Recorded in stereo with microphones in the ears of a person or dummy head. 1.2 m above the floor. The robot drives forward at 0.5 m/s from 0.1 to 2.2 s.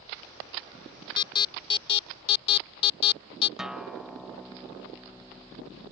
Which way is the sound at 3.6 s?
5° right (ahead or behind).